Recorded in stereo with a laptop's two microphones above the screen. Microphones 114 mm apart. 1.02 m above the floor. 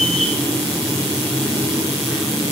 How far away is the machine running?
About 2.5 m.